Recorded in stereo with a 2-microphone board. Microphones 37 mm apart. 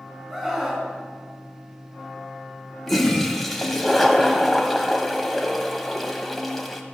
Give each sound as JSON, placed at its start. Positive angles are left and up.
{"t": 0.3, "sound": "a scream", "side_deg": -10, "distance_m": 3.5}
{"t": 2.9, "sound": "a toilet flushing", "side_deg": 5, "distance_m": 1.2}